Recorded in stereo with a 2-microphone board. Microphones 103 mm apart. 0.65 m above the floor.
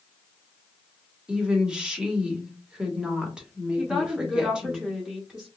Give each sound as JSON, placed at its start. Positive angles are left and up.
{"t": 1.3, "sound": "a woman speaking", "side_deg": -10, "distance_m": 1.1}
{"t": 3.8, "sound": "a woman speaking", "side_deg": -5, "distance_m": 0.8}